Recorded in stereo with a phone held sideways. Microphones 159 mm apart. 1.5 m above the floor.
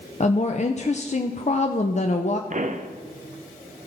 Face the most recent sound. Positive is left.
turn(degrees=-50)  # may be behind; listen again after turning